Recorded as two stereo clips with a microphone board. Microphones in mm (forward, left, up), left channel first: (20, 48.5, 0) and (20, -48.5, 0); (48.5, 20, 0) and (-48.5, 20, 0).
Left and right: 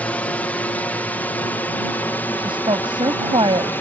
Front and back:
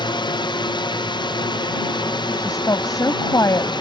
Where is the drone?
15° left; by 3.8 s 25° left.